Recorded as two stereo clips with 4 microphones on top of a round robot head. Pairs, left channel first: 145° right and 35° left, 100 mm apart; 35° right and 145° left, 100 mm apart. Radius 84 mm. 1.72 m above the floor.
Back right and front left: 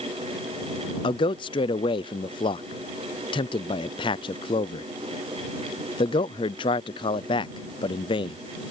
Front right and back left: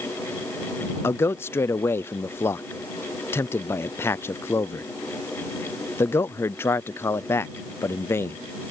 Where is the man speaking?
105° right.